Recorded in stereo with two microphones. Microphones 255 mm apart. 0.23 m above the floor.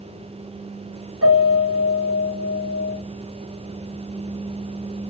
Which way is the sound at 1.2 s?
75° right (ahead or behind).